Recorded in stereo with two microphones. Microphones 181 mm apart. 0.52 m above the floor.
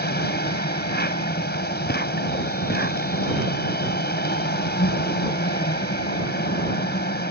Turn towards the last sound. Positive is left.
turn(degrees=70)  # may be behind; listen again after turning